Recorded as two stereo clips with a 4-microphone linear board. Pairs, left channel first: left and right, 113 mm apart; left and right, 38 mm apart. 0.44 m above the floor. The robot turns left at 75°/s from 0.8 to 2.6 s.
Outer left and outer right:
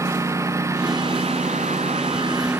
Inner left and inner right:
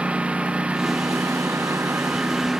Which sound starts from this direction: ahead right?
A lawn mower, at 0.0 s.